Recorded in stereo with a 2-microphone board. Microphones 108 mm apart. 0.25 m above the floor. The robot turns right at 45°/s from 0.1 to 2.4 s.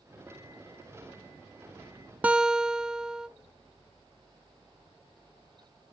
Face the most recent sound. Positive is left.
turn(degrees=-5)  # may be behind; listen again after turning